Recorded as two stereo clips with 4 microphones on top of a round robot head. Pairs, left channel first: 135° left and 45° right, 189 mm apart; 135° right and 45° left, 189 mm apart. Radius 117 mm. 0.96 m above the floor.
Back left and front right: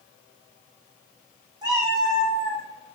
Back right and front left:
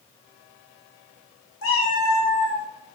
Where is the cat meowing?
115° right, 0.9 m; by 2.7 s 150° right, 1.1 m.